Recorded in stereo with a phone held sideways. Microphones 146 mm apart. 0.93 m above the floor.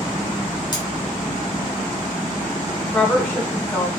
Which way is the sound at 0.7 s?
30° left (ahead or behind).